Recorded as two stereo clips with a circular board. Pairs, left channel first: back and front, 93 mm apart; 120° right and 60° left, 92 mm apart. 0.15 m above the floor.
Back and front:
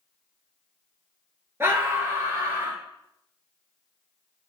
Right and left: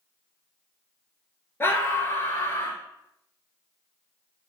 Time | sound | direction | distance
1.6 | a scream | 60° right | 2 m